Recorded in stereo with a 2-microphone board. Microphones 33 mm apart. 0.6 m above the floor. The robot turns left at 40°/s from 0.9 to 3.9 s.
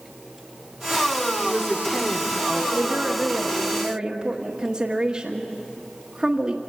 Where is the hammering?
I don't hear hammering.